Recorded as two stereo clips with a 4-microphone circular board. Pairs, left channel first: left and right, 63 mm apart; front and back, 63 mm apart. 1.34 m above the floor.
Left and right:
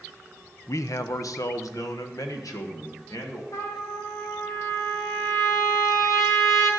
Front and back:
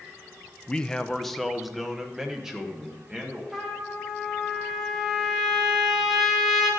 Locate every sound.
0.7 s a man speaking: 70° left, 0.5 m; by 3.4 s 105° left, 1.8 m
3.5 s a trumpet: 100° left, 1.8 m